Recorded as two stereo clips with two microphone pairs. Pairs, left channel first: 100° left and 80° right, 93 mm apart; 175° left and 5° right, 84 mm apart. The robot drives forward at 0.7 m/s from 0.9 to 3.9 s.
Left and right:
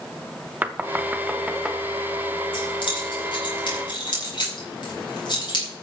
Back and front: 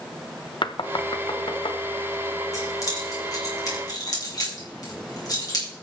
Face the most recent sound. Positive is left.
turn(degrees=135)